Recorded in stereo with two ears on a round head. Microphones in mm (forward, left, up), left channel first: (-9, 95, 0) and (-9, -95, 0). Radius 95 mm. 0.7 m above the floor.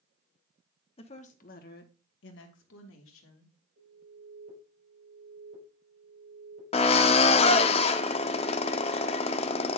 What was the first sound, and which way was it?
A woman speaking, 25° left (ahead or behind).